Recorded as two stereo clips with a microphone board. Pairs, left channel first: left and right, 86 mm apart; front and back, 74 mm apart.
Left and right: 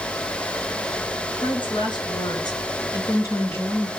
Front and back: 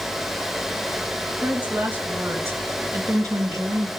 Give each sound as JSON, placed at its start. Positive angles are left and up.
{"t": 1.4, "sound": "a woman speaking", "azimuth_deg": 110, "distance_m": 4.0}